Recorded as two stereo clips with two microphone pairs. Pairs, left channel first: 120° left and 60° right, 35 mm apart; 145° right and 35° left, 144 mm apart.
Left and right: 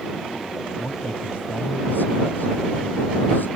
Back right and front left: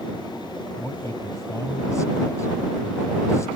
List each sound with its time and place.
0.8 s a man speaking: 150° left